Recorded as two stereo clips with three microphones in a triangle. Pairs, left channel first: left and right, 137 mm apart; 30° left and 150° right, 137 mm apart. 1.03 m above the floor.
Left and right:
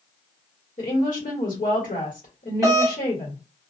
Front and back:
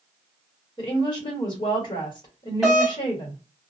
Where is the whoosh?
I don't hear a whoosh.